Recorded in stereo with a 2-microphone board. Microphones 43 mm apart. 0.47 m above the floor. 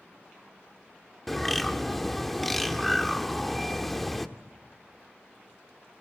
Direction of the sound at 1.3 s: 5° left (ahead or behind).